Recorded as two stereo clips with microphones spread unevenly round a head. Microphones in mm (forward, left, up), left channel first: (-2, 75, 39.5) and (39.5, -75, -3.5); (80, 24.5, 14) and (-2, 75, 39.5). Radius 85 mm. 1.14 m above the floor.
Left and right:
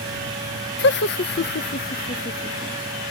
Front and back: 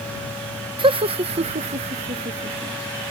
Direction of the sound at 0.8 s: 115° left.